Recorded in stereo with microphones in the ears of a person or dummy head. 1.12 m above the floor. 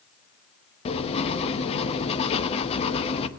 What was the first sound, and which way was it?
Writing, 35° left (ahead or behind).